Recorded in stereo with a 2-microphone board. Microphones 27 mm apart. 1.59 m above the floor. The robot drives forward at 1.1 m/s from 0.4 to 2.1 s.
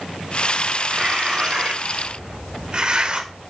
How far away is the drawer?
No drawer in this recording.